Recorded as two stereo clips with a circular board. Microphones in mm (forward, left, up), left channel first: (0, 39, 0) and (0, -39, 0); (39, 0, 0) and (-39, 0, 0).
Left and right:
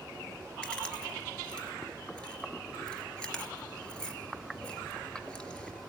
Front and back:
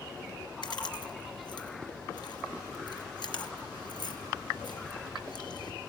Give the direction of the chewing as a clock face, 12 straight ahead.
12 o'clock.